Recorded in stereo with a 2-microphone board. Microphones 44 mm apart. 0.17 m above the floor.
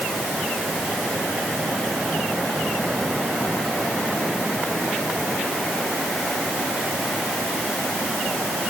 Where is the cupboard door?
I don't hear a cupboard door.